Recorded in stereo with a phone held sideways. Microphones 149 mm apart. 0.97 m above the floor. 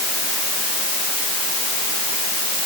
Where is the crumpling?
No crumpling in this recording.